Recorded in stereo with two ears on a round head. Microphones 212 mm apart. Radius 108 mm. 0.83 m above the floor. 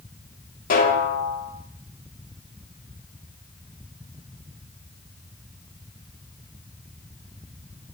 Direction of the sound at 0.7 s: 35° left (ahead or behind).